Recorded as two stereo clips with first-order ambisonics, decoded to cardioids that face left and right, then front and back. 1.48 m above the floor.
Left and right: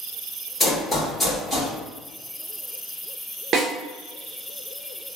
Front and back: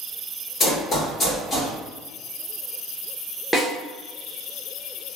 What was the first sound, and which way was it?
Running footsteps, 25° left.